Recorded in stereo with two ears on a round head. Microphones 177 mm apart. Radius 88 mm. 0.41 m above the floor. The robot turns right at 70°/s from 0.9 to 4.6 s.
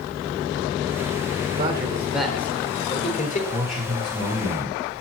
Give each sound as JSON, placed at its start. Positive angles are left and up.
{"t": 1.6, "sound": "a man speaking", "azimuth_deg": -50, "distance_m": 1.1}
{"t": 3.5, "sound": "a man speaking", "azimuth_deg": 165, "distance_m": 3.5}